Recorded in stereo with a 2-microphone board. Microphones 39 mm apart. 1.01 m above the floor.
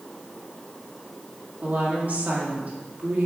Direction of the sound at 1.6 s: 40° right (ahead or behind).